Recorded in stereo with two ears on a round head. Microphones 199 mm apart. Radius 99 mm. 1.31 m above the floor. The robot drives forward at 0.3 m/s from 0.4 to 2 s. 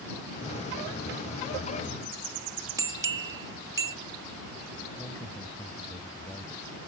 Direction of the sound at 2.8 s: 15° right (ahead or behind).